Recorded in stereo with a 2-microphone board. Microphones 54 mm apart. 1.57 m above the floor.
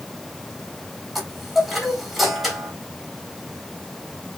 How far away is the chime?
About 3 m.